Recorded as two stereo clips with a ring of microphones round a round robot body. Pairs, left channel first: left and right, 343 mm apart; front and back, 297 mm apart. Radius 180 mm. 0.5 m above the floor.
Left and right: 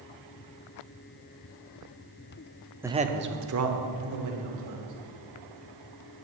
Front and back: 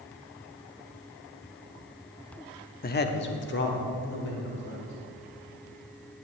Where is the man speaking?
10° right, 0.7 m; by 4.9 s 60° right, 3 m.